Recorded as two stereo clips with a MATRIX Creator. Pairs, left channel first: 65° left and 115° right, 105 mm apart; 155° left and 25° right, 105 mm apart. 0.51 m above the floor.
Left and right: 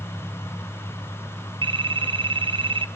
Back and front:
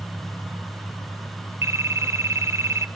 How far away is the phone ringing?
About 1.1 m.